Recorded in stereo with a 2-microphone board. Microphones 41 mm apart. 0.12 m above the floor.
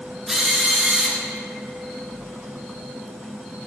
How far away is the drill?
About 1.9 m.